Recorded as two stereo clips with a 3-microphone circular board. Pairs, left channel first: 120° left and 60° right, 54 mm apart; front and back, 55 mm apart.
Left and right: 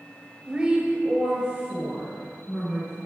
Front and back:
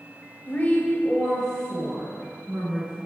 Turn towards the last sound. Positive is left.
turn(degrees=-120)